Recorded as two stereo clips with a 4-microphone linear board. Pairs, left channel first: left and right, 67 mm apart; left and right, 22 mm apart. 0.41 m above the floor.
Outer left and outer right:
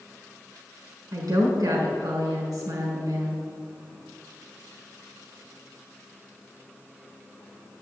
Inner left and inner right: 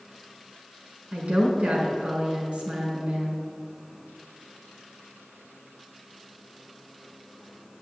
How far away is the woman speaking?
About 4.5 m.